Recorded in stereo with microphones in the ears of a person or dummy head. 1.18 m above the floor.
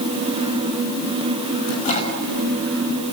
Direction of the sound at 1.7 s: 35° left (ahead or behind).